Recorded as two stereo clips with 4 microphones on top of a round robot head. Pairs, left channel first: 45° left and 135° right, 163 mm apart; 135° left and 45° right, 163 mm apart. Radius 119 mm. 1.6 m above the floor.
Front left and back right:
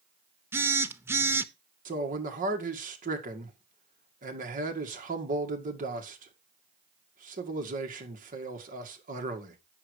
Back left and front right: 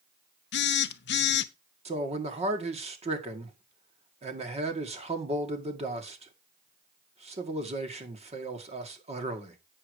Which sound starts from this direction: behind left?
A phone buzzing, at 0.5 s.